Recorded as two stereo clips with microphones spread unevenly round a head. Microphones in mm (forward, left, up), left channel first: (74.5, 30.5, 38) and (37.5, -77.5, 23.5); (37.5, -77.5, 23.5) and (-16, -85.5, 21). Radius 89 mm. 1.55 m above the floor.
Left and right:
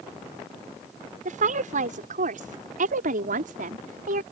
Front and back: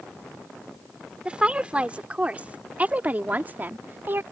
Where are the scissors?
I don't hear scissors.